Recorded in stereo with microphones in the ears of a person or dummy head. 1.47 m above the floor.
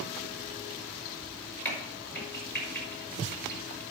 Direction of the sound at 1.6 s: 10° left (ahead or behind).